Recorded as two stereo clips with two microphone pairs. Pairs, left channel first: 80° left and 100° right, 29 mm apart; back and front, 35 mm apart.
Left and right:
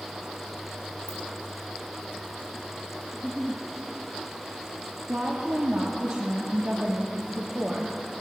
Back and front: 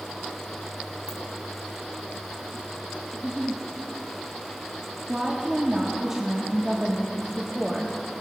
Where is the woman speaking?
70° right, 1.0 m.